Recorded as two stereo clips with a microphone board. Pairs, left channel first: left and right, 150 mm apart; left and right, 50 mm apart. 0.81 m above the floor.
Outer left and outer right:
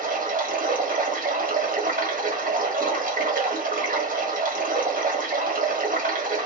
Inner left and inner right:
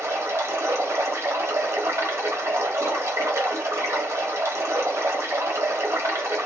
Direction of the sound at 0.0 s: 65° right (ahead or behind).